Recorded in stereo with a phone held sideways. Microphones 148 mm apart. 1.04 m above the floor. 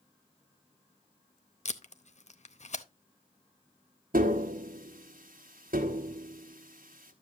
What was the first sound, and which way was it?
Tape being pulled, 50° left (ahead or behind).